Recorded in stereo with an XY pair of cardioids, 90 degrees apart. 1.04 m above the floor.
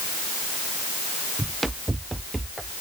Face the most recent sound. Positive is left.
turn(degrees=-20)